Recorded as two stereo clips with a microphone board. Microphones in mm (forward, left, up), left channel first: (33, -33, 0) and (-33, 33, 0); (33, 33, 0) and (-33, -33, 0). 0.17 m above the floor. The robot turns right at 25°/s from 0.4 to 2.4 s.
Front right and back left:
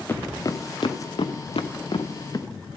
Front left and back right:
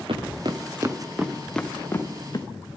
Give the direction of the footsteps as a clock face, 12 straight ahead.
4 o'clock.